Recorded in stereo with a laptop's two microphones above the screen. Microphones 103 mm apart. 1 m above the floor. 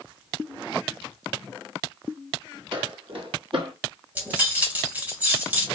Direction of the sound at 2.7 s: 50° right (ahead or behind).